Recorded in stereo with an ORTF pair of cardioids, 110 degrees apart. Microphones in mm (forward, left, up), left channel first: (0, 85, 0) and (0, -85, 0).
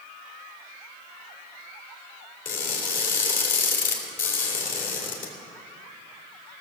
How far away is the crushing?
About 3 m.